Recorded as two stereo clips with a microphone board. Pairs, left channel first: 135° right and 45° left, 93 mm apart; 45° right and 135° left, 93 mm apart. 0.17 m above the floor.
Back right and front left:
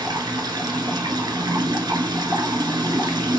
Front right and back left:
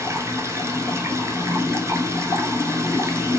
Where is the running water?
80° left, 0.9 m.